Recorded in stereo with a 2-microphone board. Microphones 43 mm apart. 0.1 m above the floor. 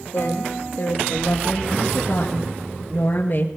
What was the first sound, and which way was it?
A woman speaking, 55° left (ahead or behind).